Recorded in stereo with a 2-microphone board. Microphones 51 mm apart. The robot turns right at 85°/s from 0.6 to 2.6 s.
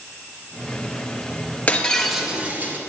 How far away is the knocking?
No knocking in this recording.